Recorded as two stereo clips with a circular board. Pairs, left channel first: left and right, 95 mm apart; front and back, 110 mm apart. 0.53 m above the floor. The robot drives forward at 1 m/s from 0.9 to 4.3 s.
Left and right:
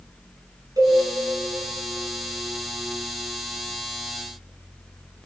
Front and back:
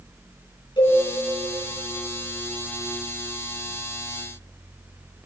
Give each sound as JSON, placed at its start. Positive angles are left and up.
{"t": 0.8, "sound": "a cowbell", "azimuth_deg": -40, "distance_m": 6.0}